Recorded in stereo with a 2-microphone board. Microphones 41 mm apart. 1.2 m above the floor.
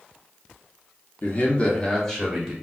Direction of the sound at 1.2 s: 45° left (ahead or behind).